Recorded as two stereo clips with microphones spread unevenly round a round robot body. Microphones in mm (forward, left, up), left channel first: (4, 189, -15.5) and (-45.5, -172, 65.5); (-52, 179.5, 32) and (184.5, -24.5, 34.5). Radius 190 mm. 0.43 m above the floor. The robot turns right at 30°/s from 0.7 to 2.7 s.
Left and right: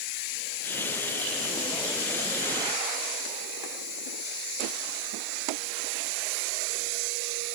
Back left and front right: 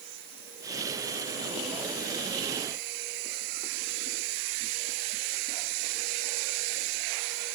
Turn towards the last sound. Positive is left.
No sound to turn to.